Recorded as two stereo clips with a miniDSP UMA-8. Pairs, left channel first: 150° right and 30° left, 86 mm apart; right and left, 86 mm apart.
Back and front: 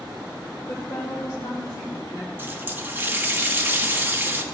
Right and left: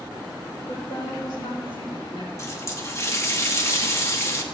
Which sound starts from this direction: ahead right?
A running tap, at 2.4 s.